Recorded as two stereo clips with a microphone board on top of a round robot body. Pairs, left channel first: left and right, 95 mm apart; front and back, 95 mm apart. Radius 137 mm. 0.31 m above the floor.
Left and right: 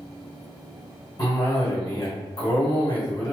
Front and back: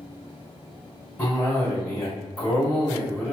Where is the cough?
55° left, 1.8 m.